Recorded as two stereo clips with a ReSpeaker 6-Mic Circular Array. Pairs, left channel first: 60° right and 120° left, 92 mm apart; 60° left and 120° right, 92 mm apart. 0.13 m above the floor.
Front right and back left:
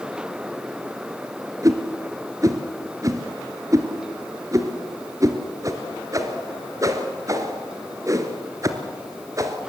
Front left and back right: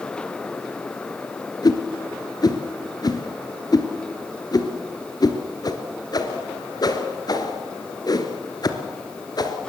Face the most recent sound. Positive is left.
turn(degrees=80)